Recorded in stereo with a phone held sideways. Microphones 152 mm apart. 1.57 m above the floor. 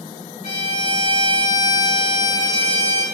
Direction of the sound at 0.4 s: 60° left (ahead or behind).